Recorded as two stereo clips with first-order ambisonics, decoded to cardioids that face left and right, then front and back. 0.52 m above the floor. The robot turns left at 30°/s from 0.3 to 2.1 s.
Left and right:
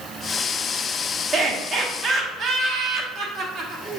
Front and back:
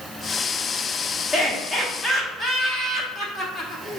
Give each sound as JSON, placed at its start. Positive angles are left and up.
{"t": 1.3, "sound": "laughter", "azimuth_deg": -45, "distance_m": 1.2}